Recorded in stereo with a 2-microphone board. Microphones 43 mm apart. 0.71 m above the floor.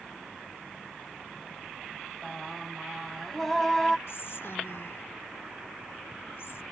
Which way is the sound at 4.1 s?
65° left (ahead or behind).